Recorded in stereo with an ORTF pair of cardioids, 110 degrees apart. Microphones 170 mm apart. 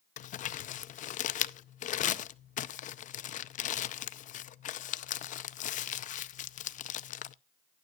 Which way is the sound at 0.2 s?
50° left.